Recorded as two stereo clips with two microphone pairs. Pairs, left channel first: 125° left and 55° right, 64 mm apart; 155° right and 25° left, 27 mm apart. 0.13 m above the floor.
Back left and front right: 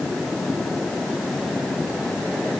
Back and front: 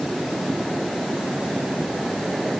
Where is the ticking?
I don't hear ticking.